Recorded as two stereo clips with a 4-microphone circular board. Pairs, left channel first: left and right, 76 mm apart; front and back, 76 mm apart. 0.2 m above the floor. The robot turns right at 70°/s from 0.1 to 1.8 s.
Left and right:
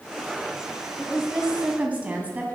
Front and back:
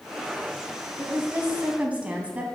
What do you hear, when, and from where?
1.0 s a woman speaking: 170° left, 1.2 m; by 2.5 s 130° right, 1.2 m